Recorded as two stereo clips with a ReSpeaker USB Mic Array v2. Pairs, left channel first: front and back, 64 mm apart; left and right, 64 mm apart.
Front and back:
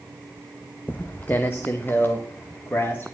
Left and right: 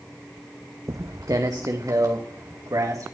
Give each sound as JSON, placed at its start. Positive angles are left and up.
{"t": 0.9, "sound": "footsteps", "azimuth_deg": -60, "distance_m": 1.2}